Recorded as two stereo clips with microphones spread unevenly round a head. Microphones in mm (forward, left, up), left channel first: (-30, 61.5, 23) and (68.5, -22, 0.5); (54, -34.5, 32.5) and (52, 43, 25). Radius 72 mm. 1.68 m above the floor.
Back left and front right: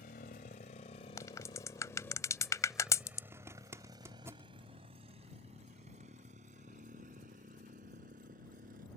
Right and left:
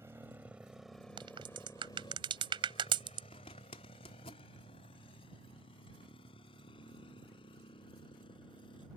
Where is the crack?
80° left.